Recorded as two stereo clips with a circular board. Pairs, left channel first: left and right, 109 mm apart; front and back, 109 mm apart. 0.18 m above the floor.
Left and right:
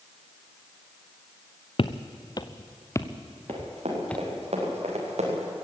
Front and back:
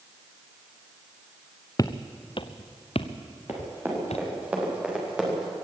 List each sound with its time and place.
1.8 s footsteps: 55° left, 1.1 m; by 4.3 s 10° left, 2 m
3.5 s running footsteps: 110° right, 8 m; by 5.5 s 95° right, 7 m